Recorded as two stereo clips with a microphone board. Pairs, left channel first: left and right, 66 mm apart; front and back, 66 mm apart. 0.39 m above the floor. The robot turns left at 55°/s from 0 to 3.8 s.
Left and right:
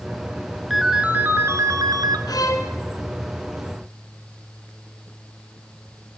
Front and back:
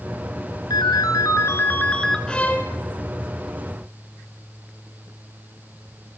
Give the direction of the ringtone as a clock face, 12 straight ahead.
12 o'clock.